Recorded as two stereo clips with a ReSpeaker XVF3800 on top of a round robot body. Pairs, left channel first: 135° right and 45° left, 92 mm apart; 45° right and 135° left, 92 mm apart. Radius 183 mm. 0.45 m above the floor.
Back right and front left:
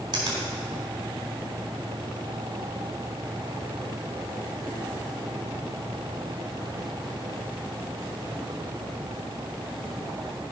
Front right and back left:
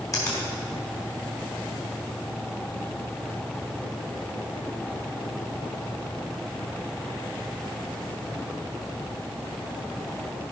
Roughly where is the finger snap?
Ahead.